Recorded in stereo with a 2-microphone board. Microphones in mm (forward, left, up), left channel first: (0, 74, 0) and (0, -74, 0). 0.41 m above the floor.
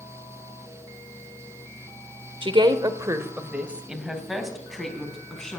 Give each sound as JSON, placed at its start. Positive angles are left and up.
{"t": 2.4, "sound": "a woman speaking", "side_deg": -35, "distance_m": 1.2}